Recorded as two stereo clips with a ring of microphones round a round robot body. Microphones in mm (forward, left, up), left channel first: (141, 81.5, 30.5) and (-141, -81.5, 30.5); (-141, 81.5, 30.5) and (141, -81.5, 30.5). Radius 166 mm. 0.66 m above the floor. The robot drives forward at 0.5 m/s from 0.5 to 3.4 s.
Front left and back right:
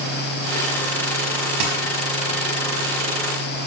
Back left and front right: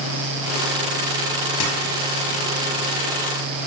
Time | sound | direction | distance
1.6 | a dropped coin | 165° right | 5 m